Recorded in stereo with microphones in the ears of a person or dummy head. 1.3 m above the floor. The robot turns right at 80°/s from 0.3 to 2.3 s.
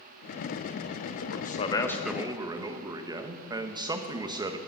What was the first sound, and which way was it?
A man speaking, 105° left.